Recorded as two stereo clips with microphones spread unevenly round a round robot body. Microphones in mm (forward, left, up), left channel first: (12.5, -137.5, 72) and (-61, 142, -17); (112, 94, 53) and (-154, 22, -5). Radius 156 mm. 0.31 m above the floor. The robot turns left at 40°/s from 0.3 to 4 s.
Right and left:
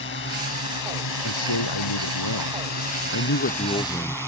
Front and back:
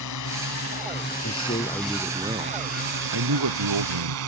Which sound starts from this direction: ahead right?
A man speaking, at 1.2 s.